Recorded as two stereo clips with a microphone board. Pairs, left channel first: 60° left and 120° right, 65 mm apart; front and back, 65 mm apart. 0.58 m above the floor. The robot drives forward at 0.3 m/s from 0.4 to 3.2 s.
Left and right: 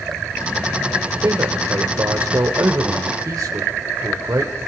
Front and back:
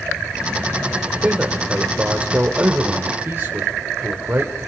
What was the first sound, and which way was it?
A man speaking, 105° right.